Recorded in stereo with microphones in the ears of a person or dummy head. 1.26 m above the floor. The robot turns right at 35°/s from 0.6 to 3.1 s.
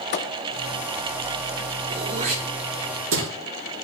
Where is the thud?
30° left (ahead or behind), 0.6 m.